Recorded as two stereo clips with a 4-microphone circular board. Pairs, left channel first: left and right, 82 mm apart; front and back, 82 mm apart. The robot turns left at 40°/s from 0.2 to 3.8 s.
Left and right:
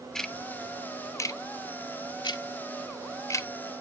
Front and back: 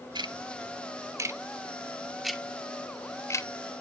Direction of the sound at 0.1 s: 175° left.